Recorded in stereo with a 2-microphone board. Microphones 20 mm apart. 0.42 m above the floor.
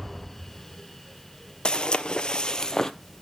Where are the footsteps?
45° left (ahead or behind), 0.6 m; by 2.9 s 25° left (ahead or behind), 0.7 m.